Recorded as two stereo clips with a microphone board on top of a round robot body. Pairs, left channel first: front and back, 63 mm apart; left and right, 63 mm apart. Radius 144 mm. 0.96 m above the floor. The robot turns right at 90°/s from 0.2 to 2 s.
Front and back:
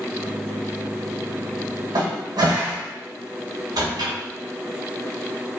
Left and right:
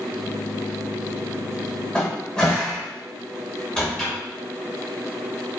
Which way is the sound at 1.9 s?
165° left.